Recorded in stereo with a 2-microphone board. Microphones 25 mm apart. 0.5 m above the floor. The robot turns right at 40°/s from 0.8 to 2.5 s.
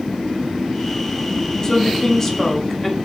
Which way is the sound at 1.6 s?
25° left (ahead or behind).